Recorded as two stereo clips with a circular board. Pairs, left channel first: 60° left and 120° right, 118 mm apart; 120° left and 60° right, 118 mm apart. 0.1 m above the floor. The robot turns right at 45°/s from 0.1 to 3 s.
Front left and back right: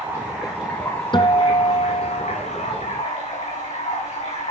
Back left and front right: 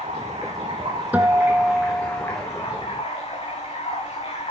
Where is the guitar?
15° left, 1.2 m; by 2.4 s 70° left, 1.2 m.